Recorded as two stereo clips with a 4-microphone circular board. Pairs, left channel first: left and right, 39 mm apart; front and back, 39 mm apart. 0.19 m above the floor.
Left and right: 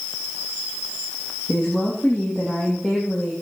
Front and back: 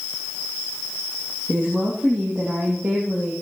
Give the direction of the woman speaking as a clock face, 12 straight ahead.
7 o'clock.